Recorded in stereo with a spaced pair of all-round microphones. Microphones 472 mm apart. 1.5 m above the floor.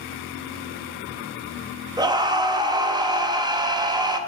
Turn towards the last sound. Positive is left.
turn(degrees=-10)  # may be behind; listen again after turning